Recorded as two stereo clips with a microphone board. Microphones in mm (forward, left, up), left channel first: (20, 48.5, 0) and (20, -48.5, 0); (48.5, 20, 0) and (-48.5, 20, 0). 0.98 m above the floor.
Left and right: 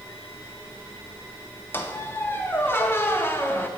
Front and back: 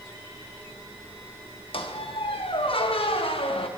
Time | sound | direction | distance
1.7 | a squeak | 25° left | 0.5 m